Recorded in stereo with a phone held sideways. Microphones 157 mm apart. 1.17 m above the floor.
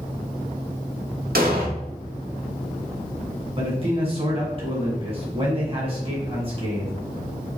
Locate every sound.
1.4 s an explosion: 70° right (ahead or behind), 1.1 m
3.6 s a man speaking: 35° right (ahead or behind), 1.9 m